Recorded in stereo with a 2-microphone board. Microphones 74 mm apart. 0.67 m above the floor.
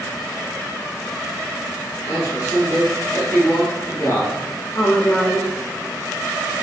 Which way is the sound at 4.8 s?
35° left (ahead or behind).